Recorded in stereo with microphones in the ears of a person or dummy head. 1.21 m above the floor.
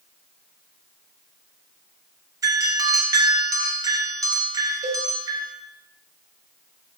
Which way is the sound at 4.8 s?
40° right (ahead or behind).